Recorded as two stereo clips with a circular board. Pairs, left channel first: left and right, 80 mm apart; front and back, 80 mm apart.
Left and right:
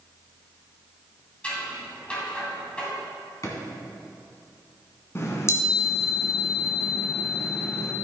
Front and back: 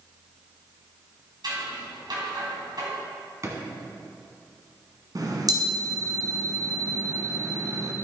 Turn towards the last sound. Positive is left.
turn(degrees=145)